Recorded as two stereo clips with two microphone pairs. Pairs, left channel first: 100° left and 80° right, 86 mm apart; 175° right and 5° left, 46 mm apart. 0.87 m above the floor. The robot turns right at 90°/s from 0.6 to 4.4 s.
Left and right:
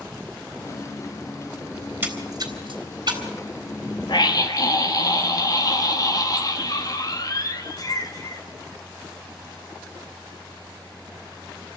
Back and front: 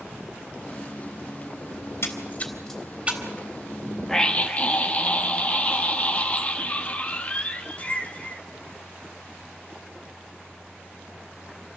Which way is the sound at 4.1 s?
105° left.